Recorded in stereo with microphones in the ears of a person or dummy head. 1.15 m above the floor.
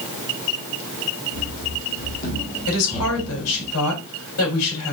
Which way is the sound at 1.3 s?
65° left (ahead or behind).